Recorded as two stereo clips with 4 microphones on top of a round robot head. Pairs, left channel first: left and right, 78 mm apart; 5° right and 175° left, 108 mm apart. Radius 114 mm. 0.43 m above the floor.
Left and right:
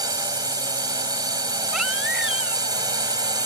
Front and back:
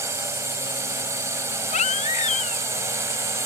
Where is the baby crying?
5° right.